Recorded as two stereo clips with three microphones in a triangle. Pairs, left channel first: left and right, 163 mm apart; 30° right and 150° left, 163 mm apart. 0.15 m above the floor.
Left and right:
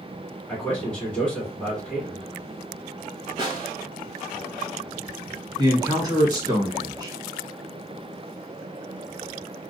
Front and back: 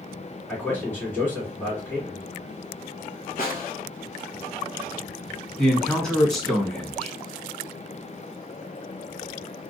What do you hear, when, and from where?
0.5 s a man speaking: 20° left, 1.6 m
3.4 s a snare drum: 35° right, 0.9 m
5.6 s a man speaking: 115° right, 1.3 m